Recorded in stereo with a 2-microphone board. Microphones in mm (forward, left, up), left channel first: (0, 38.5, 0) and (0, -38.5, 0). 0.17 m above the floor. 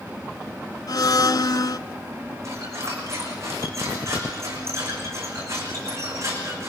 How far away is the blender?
About 0.7 m.